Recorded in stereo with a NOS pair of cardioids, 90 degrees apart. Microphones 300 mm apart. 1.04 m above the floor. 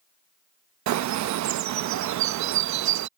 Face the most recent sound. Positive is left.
turn(degrees=-65)